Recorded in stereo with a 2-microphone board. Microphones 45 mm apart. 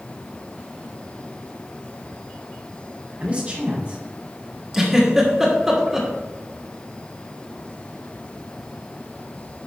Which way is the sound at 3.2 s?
30° right (ahead or behind).